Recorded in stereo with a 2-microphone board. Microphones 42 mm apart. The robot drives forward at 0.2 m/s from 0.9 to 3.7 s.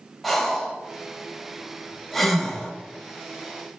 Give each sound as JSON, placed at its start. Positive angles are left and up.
{"t": 0.2, "sound": "breathing", "side_deg": 5, "distance_m": 0.6}